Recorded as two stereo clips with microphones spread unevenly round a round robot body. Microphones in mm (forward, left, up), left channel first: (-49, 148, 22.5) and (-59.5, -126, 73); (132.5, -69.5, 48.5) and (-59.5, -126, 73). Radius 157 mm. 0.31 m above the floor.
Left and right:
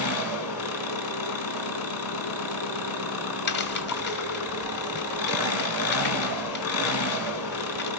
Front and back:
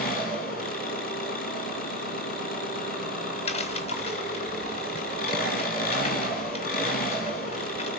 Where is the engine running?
65° left, 2.5 m.